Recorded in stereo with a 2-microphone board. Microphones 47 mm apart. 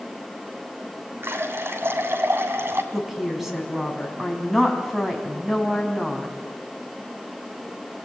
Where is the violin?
I don't hear a violin.